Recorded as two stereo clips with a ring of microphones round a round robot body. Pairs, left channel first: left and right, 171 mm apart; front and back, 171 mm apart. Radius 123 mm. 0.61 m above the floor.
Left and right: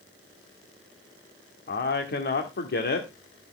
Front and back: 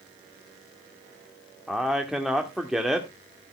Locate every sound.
1.7 s a man speaking: 95° left, 1.8 m